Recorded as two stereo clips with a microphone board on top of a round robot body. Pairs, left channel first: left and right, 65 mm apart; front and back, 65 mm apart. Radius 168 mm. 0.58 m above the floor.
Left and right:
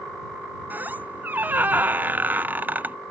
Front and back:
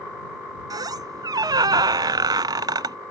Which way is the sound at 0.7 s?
160° right.